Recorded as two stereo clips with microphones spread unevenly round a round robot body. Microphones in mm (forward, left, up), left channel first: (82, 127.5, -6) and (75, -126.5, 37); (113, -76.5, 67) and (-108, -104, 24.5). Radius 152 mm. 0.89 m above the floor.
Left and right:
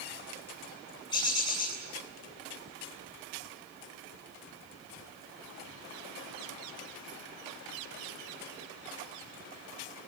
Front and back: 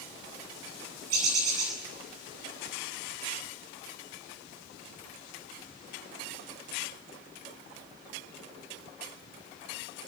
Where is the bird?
165° left, 8.5 m.